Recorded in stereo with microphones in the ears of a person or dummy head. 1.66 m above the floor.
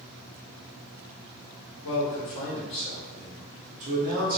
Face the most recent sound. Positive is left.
turn(degrees=-50)  # may be behind; listen again after turning